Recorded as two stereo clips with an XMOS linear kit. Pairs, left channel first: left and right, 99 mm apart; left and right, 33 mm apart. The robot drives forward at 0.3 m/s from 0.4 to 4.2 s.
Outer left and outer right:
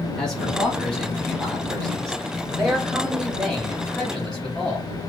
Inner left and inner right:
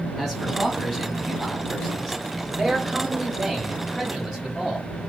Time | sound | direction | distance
0.2 | a man speaking | 5° left (ahead or behind) | 1.3 m